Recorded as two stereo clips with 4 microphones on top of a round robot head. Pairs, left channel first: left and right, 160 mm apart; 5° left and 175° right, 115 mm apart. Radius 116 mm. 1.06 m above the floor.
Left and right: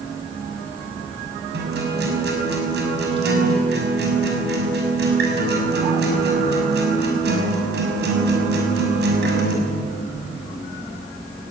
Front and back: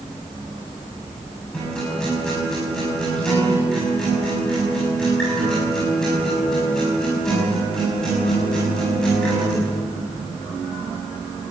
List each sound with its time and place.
1.5 s a guitar: 80° right, 6.5 m